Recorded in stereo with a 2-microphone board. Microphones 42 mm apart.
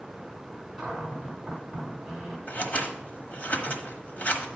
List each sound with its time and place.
0.8 s a cupboard door: 5° right (ahead or behind), 2.5 m
2.5 s scissors: 40° left (ahead or behind), 1.2 m